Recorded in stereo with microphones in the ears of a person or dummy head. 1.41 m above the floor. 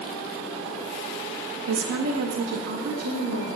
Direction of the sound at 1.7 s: 75° right (ahead or behind).